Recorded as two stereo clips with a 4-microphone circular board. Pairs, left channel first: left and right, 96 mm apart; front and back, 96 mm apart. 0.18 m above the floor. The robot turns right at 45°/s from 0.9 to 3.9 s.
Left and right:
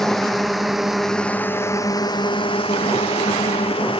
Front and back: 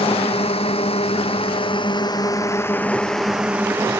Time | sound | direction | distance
0.0 | a drone | straight ahead | ?